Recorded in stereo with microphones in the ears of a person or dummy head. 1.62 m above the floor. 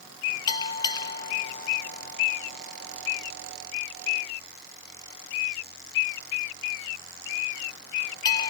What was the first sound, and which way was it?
A bell, 25° left (ahead or behind).